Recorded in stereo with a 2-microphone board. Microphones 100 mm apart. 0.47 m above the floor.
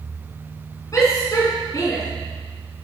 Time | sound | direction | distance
0.9 | a shout | 35° left (ahead or behind) | 4 m